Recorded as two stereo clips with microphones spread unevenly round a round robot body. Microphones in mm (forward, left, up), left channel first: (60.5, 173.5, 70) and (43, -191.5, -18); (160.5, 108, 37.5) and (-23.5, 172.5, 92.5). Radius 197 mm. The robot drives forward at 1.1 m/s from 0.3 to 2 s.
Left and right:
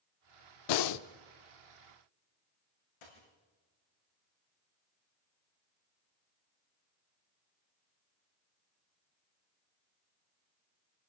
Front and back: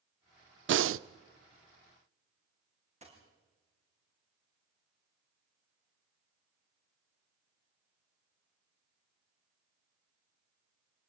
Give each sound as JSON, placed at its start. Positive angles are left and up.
{"t": 0.7, "sound": "breathing", "azimuth_deg": 120, "distance_m": 0.5}
{"t": 3.0, "sound": "a dropped coin", "azimuth_deg": 105, "distance_m": 9.0}